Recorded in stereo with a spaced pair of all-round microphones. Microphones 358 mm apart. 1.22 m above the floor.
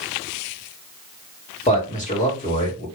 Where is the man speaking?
20° left (ahead or behind), 1.8 m.